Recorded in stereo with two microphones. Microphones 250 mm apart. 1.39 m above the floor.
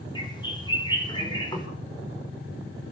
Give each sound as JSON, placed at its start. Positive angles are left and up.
{"t": 0.1, "sound": "a bird", "side_deg": 15, "distance_m": 5.0}